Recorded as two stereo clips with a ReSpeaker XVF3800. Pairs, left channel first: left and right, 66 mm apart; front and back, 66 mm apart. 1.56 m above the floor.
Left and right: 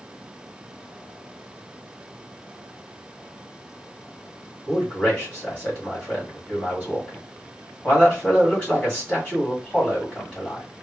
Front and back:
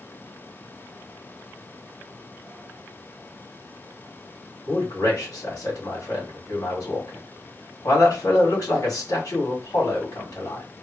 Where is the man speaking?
25° left, 2.5 m.